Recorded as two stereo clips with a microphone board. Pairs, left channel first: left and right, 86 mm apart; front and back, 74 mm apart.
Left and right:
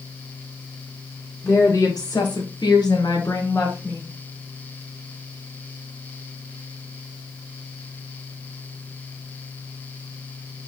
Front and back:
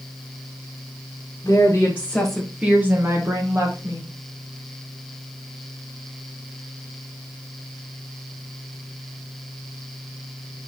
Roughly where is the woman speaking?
Ahead left.